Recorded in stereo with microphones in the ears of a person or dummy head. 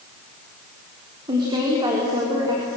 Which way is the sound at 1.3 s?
25° right (ahead or behind).